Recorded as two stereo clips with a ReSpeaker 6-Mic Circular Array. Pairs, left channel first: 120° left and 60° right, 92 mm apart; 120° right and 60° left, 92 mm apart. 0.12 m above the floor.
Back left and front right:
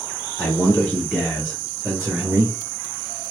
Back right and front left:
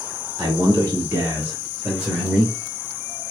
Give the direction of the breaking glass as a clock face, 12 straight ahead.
I don't hear breaking glass.